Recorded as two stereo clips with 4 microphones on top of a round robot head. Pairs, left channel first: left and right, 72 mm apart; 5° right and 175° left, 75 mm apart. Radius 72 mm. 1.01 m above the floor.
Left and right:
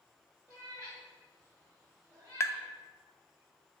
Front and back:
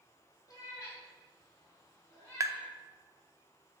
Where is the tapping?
135° left, 0.5 m.